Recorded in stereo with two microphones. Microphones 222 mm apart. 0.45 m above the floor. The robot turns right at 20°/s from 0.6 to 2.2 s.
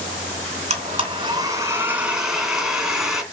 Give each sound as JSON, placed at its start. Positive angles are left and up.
{"t": 0.7, "sound": "a blender", "azimuth_deg": -35, "distance_m": 2.0}